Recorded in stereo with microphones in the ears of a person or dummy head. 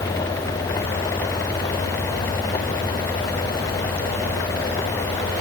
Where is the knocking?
No knocking in this recording.